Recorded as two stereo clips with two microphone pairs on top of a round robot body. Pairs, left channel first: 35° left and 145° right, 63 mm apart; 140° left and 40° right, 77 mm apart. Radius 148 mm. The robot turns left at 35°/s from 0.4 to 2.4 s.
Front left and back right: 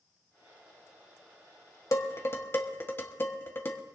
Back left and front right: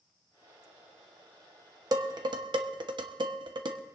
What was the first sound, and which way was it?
Dishes clattering, 5° right.